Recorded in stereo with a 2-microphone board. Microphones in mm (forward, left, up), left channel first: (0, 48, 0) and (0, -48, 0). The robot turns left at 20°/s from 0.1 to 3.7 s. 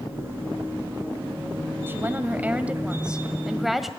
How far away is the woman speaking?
About 1.6 m.